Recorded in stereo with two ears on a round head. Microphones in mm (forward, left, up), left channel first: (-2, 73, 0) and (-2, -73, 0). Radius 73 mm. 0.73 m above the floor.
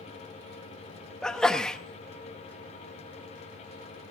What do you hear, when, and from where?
1.2 s a sneeze: 5° left (ahead or behind), 0.8 m